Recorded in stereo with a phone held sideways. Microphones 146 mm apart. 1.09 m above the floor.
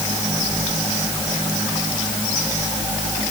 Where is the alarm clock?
No alarm clock in this recording.